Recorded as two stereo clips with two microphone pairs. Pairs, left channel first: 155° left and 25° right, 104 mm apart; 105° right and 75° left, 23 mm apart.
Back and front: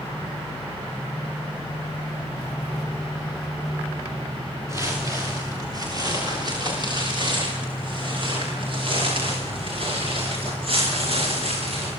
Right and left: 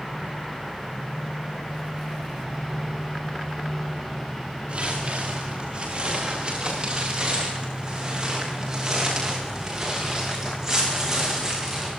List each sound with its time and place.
4.7 s footsteps: 40° left, 9.5 m; by 11.9 s 5° left, 17 m